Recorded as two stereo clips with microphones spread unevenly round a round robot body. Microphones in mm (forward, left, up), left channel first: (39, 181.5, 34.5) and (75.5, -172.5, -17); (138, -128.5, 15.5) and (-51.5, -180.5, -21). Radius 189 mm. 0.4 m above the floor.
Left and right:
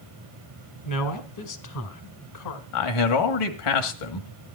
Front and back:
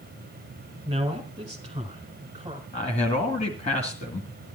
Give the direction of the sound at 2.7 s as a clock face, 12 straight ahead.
9 o'clock.